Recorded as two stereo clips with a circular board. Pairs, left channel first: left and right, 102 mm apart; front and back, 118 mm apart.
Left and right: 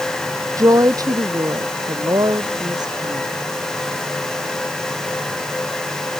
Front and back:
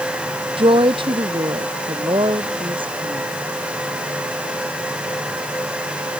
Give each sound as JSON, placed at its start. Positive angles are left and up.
{"t": 0.6, "sound": "a woman speaking", "azimuth_deg": -145}